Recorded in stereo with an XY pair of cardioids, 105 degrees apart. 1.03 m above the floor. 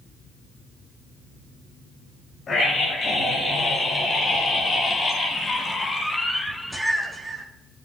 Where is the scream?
50° left, 5 m; by 7.5 s 45° right, 1.0 m.